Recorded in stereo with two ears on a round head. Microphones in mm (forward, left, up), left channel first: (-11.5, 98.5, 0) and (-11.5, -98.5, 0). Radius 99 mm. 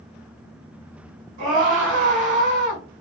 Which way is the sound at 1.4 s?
40° right (ahead or behind).